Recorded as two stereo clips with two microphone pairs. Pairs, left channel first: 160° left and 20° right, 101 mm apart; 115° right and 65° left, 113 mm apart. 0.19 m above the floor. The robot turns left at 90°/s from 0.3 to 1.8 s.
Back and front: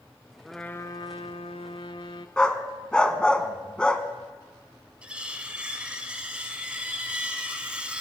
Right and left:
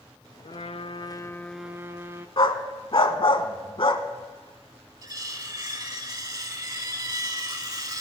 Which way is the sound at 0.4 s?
105° right.